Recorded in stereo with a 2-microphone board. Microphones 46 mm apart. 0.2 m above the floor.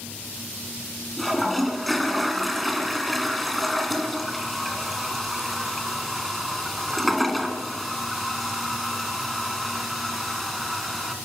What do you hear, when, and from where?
1.2 s a toilet flushing: centre (ahead or behind), 2.5 m